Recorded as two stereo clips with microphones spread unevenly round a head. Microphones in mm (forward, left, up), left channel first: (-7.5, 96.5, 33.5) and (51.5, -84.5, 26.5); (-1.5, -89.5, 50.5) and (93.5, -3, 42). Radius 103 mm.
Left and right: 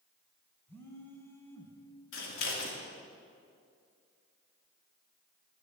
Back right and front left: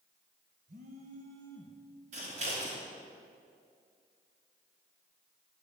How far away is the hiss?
I don't hear a hiss.